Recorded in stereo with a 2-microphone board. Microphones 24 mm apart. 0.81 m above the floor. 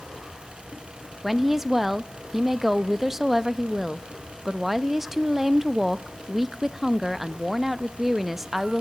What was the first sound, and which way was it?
A woman speaking, 15° right (ahead or behind).